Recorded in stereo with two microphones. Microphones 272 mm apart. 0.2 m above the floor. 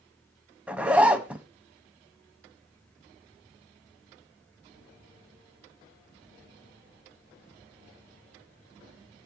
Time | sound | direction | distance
0.7 | a zipper | 5° right (ahead or behind) | 0.8 m